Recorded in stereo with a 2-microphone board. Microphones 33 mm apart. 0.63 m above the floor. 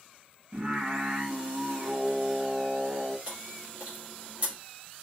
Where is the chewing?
40° right (ahead or behind), 1.6 m.